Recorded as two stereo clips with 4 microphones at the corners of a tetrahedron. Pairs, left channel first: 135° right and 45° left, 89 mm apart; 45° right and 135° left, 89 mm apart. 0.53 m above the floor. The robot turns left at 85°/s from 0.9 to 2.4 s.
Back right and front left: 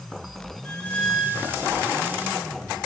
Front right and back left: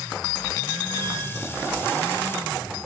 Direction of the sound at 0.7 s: 155° left.